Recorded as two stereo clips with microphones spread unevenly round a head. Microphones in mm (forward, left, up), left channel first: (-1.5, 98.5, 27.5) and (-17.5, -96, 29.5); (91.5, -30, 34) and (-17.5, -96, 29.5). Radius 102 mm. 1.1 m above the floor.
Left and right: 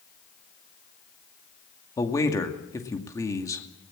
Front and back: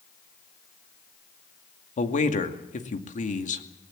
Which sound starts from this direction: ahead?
A man speaking, at 2.0 s.